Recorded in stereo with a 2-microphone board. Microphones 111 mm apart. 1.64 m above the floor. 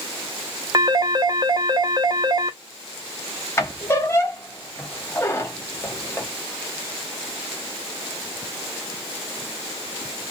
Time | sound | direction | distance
0.7 | a phone ringing | 35° right (ahead or behind) | 0.6 m
3.6 | a squeak | 25° left (ahead or behind) | 0.7 m